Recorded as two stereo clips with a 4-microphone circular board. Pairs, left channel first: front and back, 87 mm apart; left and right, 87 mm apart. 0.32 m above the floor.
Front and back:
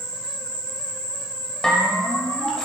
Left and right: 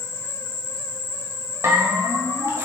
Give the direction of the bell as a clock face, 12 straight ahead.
3 o'clock.